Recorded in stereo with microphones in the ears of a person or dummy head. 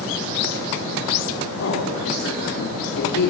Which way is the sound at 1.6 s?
60° left (ahead or behind).